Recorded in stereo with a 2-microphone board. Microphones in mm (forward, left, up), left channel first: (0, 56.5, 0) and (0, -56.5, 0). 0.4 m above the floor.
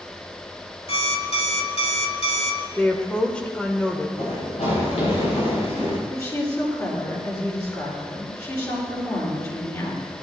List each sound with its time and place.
0.9 s an alarm clock: 60° left (ahead or behind), 1.3 m
2.8 s a woman speaking: 10° left (ahead or behind), 1.5 m
4.2 s running footsteps: 80° left, 6.5 m; by 6.0 s 75° left (ahead or behind), 7 m
6.1 s a woman speaking: 30° left (ahead or behind), 6.5 m